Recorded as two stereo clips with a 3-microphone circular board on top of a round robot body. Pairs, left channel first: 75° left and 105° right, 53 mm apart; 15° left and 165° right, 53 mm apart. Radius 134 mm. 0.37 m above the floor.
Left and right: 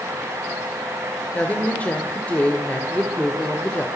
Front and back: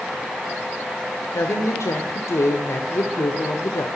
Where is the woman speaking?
15° left, 1.8 m.